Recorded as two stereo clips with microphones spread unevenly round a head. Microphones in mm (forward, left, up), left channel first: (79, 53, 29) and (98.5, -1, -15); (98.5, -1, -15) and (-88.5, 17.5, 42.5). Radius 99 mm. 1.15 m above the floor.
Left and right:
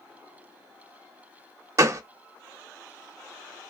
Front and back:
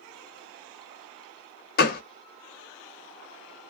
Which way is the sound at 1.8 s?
5° left.